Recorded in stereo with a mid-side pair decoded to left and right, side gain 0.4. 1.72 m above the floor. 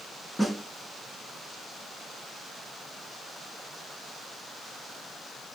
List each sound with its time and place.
0.4 s a snare drum: 10° left, 2.5 m